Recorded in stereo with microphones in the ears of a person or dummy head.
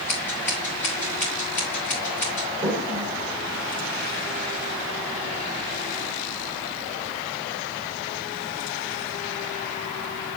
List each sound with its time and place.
0.1 s scissors: 5° left (ahead or behind), 3 m
2.6 s a toilet flushing: 35° right (ahead or behind), 1.5 m